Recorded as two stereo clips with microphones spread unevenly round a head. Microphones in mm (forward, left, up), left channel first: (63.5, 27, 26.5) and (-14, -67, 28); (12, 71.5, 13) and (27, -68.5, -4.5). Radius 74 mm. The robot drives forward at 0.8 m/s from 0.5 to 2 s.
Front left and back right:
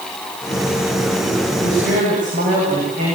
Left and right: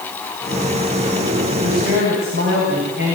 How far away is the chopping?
I don't hear chopping.